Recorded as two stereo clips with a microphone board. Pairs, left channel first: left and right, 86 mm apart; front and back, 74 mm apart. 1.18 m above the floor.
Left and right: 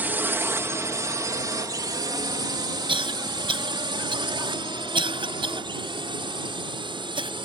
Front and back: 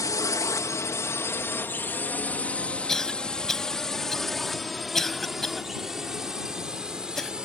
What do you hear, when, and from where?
0.0 s a drone: 25° right; by 7.5 s 100° right
2.9 s a cough: 85° right